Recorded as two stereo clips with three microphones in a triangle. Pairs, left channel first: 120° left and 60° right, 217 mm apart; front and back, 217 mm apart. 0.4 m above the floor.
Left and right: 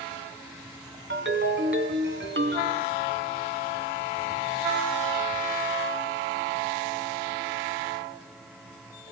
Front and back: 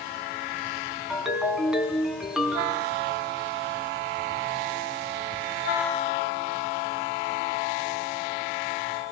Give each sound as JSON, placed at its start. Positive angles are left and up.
{"t": 1.1, "sound": "a ringtone", "azimuth_deg": -90, "distance_m": 2.5}